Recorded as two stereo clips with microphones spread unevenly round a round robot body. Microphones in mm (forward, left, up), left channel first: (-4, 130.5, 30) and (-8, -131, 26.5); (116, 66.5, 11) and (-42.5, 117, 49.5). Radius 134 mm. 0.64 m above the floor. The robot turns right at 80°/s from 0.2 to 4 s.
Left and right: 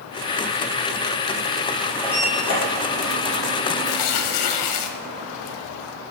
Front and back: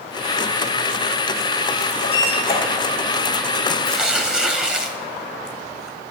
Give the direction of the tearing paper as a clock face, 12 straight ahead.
10 o'clock.